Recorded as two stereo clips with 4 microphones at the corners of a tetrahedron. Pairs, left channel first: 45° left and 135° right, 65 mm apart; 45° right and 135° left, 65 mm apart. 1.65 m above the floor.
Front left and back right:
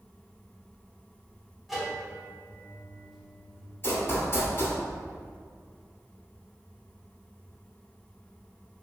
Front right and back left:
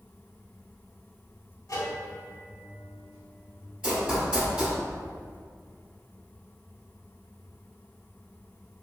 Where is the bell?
50° right, 0.9 m.